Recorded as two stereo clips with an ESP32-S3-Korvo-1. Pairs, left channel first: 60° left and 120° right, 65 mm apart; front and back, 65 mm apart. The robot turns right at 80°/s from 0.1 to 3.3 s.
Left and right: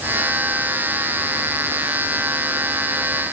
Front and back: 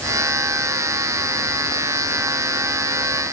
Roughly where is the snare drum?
No snare drum in this recording.